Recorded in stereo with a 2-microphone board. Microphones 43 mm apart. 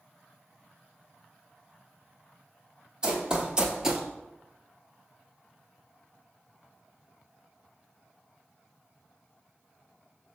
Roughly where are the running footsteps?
Centre.